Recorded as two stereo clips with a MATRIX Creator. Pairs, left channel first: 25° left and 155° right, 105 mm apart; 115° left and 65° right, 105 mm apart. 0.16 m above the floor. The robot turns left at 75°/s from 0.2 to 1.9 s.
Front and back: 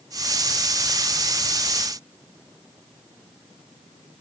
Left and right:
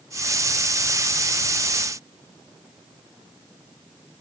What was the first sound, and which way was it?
Only background noise.